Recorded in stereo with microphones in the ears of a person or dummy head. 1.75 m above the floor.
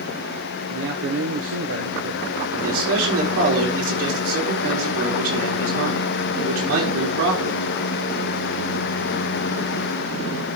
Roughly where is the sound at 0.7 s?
Right.